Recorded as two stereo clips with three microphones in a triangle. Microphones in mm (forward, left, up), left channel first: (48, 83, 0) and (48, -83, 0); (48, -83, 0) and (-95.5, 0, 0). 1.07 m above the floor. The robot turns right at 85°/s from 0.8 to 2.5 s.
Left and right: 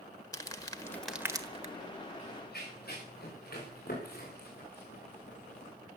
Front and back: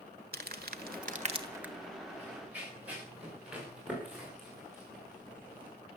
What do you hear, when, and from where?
0.3 s crumpling: 155° left, 1.4 m; by 1.7 s 125° right, 1.4 m
2.2 s running footsteps: 45° left, 9.5 m; by 5.7 s 50° left, 5.5 m